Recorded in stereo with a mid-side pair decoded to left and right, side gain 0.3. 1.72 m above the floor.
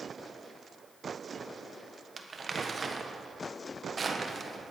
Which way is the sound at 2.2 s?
45° right.